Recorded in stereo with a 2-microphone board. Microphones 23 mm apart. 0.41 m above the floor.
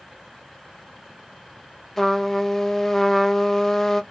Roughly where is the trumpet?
Centre.